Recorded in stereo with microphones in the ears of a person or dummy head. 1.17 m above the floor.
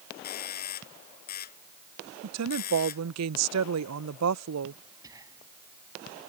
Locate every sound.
0.2 s a doorbell: 40° left (ahead or behind)
2.2 s a woman speaking: 75° right (ahead or behind)
5.0 s whispering: 15° right (ahead or behind)